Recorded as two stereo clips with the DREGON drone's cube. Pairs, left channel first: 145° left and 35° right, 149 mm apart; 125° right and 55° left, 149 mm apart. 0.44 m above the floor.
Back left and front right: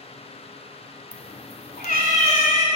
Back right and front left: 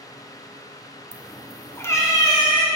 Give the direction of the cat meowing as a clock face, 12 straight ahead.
8 o'clock.